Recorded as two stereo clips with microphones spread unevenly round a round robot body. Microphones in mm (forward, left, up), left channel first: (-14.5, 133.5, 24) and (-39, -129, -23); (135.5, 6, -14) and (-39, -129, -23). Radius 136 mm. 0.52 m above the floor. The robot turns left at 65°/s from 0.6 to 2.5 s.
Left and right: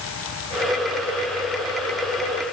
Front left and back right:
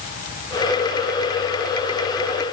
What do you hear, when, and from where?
Only background noise.